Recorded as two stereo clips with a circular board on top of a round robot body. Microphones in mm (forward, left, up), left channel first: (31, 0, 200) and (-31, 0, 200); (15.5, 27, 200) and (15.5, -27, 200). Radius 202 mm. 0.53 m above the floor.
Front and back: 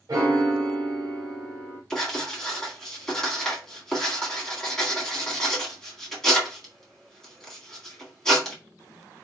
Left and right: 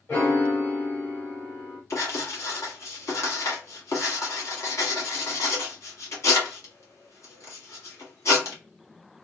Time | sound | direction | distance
0.1 | a piano | 140° left | 1.0 m
1.9 | writing | 80° left | 1.9 m